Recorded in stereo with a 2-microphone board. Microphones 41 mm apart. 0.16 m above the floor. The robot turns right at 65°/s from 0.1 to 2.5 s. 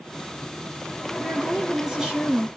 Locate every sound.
1.2 s a woman speaking: 10° left (ahead or behind), 1.5 m; by 2.5 s 25° right (ahead or behind), 1.5 m